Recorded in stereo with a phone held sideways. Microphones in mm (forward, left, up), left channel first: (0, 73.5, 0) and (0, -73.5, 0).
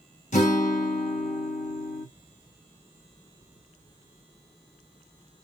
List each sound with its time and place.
0.3 s a guitar: 60° left (ahead or behind), 1.1 m